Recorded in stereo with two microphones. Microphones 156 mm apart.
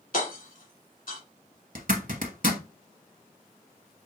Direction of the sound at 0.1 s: 65° left (ahead or behind).